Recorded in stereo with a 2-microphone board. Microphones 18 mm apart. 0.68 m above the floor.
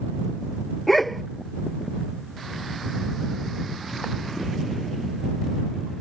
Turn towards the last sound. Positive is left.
turn(degrees=5)  # may be behind; listen again after turning